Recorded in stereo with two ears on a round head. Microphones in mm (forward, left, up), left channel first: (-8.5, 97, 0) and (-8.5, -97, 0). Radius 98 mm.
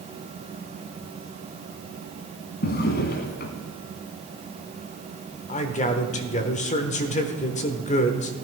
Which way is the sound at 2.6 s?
50° left (ahead or behind).